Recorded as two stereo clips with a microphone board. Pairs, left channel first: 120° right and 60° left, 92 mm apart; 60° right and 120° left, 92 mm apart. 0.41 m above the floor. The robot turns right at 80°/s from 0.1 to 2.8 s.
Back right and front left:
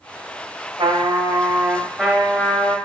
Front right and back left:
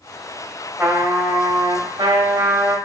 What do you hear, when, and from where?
0.8 s a trumpet: 50° left, 0.7 m; by 2.8 s 155° right, 0.7 m